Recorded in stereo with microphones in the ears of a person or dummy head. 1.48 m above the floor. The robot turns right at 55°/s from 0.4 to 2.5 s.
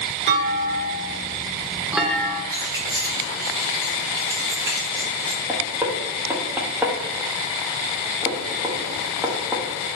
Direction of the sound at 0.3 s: 90° right.